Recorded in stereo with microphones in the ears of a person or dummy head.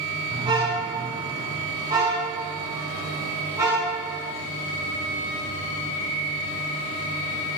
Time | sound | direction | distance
0.3 | a car horn | 25° right (ahead or behind) | 5.5 m